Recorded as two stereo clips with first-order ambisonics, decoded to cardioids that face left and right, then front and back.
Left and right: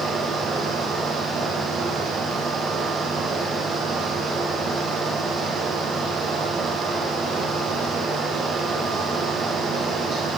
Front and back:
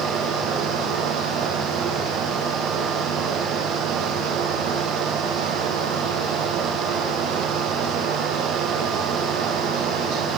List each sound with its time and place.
Only background noise.